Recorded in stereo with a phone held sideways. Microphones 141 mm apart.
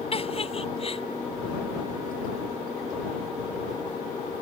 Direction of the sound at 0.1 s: 40° left (ahead or behind).